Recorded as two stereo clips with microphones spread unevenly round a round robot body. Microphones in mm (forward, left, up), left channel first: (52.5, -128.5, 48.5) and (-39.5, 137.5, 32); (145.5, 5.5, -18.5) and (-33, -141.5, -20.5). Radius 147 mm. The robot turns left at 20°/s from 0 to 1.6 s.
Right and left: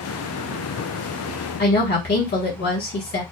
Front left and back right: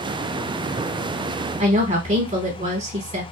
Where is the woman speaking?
100° right, 1.1 m.